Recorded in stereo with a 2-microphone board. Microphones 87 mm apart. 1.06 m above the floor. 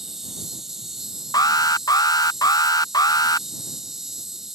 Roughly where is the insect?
Centre.